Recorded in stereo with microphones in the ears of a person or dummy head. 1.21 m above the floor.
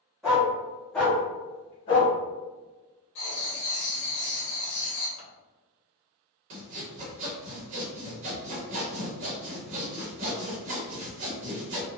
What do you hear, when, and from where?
0.2 s a dog barking: centre (ahead or behind), 1.5 m; by 2.1 s 25° left (ahead or behind), 0.6 m
3.1 s writing: 60° left (ahead or behind), 1.0 m
5.2 s scissors: 65° left (ahead or behind), 1.1 m
6.5 s sawing: 40° right (ahead or behind), 0.9 m